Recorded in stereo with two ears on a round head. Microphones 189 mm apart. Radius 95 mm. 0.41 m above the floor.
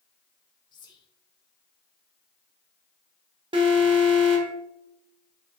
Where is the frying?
I don't hear frying.